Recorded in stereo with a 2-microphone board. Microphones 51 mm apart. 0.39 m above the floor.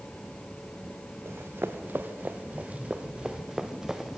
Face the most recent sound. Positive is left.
turn(degrees=-5)  # may be behind; listen again after turning